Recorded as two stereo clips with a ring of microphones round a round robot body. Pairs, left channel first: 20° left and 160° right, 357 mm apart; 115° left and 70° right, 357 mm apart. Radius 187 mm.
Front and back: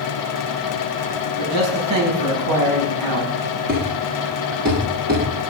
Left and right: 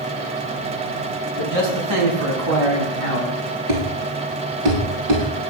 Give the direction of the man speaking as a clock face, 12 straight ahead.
4 o'clock.